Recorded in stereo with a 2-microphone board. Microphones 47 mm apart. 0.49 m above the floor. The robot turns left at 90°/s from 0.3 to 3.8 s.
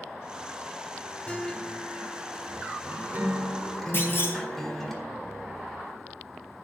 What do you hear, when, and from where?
1.3 s a guitar: 40° left, 1.7 m; by 4.9 s 170° left, 1.7 m
3.9 s a clunk: 50° left (ahead or behind), 3 m